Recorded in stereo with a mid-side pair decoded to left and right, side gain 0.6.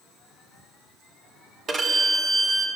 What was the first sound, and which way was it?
A violin, 35° right.